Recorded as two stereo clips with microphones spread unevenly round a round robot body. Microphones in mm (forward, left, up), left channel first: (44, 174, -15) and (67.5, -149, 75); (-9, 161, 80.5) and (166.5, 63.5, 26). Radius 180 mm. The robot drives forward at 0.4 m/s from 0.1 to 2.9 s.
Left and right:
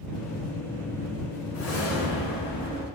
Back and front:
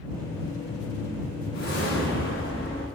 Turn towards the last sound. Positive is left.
turn(degrees=155)